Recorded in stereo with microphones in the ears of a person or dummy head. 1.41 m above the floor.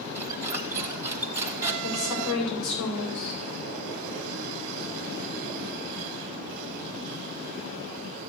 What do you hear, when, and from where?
0.1 s a squeak: 15° right (ahead or behind), 0.8 m
1.8 s a woman speaking: 85° left, 5.5 m